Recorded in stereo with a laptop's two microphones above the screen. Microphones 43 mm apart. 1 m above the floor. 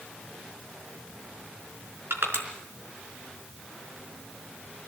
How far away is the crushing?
About 4 m.